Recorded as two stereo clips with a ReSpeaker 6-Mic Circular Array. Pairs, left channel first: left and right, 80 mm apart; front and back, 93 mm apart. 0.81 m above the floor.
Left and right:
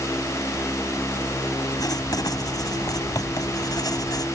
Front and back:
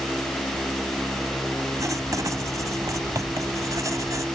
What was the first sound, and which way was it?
Writing, 130° left.